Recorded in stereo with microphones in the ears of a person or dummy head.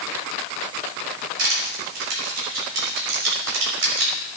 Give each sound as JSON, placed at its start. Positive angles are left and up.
{"t": 1.4, "sound": "crushing", "side_deg": -70, "distance_m": 4.0}